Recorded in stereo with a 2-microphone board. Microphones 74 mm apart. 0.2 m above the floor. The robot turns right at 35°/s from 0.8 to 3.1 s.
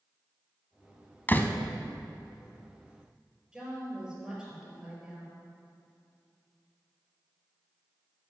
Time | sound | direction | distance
1.3 | a door slam | 25° left (ahead or behind) | 0.8 m
3.5 | a woman speaking | 10° right (ahead or behind) | 4 m